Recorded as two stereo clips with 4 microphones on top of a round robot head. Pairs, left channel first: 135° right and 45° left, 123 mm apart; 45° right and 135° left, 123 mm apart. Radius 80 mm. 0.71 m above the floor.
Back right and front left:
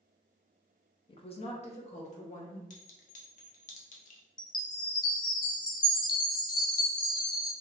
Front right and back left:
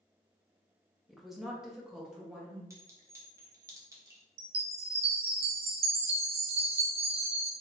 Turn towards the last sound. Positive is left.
turn(degrees=175)